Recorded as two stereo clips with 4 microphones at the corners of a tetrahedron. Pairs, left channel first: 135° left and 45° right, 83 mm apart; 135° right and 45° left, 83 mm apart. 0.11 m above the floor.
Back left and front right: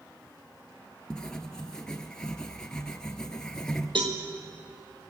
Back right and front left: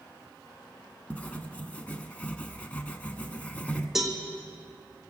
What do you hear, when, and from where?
1.1 s writing: 165° right, 1.0 m
4.0 s a cowbell: 40° right, 1.6 m